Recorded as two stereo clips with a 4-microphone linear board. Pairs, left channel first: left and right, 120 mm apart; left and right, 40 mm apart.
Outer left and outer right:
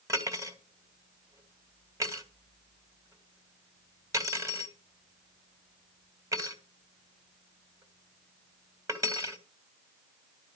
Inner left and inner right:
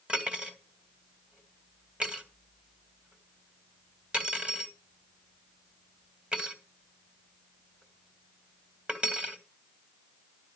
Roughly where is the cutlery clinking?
Right.